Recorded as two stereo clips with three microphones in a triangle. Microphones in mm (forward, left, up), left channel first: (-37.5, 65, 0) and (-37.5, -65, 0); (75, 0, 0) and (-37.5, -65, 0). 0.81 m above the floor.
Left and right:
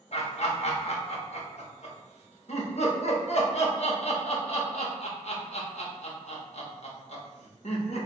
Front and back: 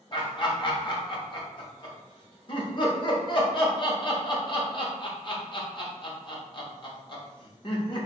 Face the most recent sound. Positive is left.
turn(degrees=75)